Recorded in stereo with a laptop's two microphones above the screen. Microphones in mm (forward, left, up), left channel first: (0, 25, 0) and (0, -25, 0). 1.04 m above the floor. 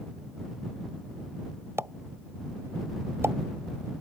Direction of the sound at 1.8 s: 55° right (ahead or behind).